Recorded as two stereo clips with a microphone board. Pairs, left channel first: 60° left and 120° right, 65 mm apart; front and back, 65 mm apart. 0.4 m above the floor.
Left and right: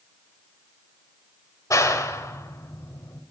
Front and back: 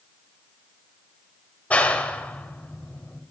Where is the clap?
60° left, 1.3 m.